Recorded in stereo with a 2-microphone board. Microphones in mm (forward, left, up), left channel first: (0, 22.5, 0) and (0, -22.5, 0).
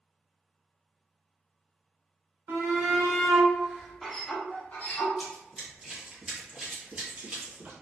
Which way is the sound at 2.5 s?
50° right (ahead or behind).